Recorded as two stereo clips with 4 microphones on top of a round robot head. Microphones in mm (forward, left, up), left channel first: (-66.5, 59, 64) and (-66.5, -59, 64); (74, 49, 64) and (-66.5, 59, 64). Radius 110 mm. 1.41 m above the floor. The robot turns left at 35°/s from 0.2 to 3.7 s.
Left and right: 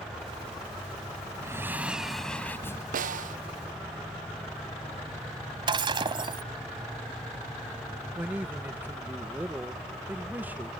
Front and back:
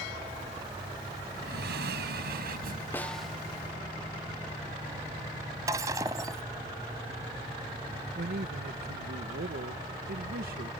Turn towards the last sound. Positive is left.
turn(degrees=-165)